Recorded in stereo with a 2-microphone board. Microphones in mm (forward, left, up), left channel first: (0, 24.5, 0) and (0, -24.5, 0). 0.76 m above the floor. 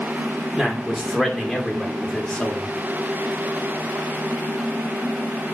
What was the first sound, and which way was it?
A man speaking, 10° right (ahead or behind).